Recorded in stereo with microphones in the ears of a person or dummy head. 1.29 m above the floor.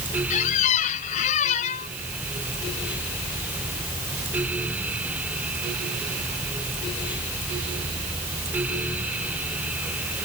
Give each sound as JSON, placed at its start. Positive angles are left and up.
{"t": 0.3, "sound": "a squeak", "side_deg": 40}